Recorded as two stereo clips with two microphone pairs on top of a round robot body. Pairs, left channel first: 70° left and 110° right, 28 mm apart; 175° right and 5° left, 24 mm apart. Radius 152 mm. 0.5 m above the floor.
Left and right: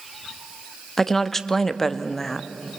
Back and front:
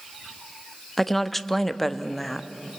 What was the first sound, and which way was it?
A woman speaking, 135° left.